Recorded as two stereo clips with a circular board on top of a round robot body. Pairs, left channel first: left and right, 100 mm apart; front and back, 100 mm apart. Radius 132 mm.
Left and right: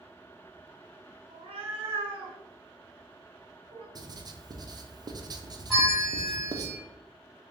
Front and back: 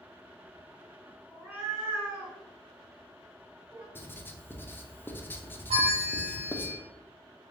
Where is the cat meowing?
105° right, 1.2 m.